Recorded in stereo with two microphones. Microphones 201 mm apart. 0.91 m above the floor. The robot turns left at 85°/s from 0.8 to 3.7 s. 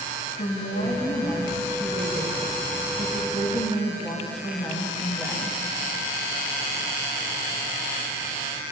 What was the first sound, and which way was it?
A woman speaking, 65° left.